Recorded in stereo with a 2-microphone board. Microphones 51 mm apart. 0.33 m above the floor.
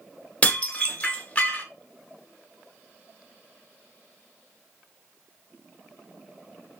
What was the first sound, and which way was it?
Dishes clattering, 25° left (ahead or behind).